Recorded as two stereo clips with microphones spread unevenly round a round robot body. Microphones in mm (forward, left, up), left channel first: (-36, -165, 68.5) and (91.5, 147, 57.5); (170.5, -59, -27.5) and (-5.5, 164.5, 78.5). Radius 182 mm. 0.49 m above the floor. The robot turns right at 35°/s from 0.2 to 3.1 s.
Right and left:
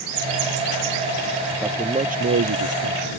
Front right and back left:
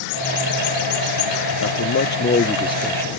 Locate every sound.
1.6 s a man speaking: 15° right; by 3.2 s 35° left